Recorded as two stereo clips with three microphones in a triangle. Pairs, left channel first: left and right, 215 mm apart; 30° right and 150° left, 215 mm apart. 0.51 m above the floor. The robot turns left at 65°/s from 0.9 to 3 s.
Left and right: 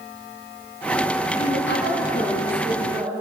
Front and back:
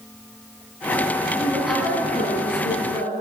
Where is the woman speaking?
80° left, 5 m; by 3.1 s 25° right, 5 m.